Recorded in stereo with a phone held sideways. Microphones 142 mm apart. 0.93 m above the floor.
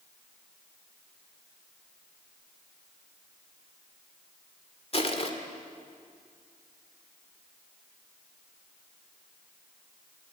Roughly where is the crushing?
Left.